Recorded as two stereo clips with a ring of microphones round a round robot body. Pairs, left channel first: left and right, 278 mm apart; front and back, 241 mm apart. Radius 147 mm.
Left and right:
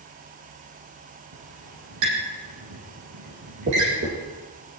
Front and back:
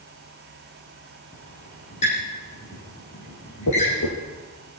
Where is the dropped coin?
35° right, 7.5 m.